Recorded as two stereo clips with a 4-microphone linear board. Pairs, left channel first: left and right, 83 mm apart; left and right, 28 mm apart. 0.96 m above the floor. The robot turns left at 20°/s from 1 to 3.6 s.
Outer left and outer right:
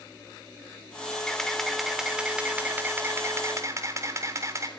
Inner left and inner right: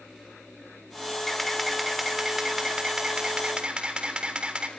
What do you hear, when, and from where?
1.3 s a camera shutter: 10° left, 3.5 m; by 4.7 s 40° right, 3.5 m